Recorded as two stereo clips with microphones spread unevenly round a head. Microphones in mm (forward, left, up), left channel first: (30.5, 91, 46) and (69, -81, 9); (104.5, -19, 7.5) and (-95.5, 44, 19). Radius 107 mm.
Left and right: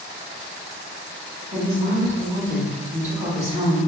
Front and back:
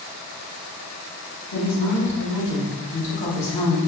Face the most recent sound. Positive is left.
turn(degrees=-20)